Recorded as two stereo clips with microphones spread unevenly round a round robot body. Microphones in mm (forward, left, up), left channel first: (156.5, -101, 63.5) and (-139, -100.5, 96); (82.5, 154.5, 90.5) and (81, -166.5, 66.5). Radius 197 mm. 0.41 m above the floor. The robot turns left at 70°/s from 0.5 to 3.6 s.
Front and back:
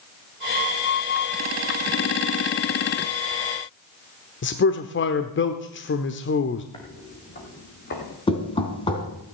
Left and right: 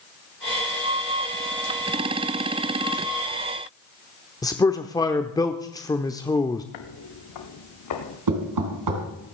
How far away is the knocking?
About 3.5 m.